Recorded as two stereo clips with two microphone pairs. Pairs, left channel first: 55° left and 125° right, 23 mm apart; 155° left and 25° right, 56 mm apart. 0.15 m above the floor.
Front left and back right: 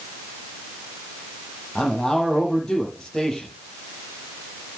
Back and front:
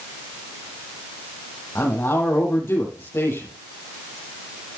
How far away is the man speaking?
About 5.5 m.